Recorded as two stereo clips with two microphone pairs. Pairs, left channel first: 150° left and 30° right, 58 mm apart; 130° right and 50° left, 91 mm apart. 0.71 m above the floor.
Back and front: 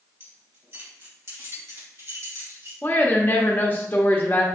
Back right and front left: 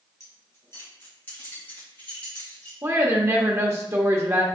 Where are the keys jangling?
75° right, 1.9 m; by 2.7 s 55° right, 3.5 m.